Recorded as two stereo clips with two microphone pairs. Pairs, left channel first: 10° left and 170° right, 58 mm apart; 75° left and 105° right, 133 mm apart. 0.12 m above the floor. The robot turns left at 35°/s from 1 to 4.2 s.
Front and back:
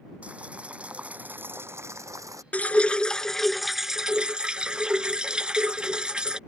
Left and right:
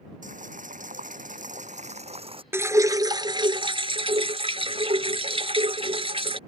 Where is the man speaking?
No man speaking in this recording.